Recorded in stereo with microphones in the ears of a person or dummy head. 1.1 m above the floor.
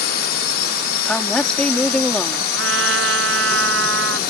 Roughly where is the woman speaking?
Centre.